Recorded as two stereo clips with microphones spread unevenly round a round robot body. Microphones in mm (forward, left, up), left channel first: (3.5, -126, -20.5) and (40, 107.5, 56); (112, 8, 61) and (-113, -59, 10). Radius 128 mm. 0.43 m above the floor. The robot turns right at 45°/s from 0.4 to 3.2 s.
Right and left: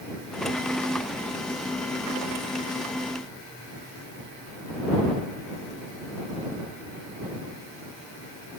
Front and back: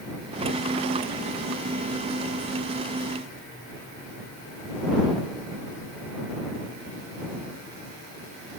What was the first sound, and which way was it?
Only background noise.